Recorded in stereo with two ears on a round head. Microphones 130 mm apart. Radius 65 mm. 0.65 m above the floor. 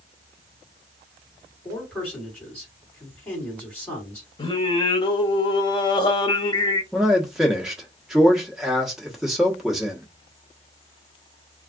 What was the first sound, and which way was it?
A man speaking, 10° left (ahead or behind).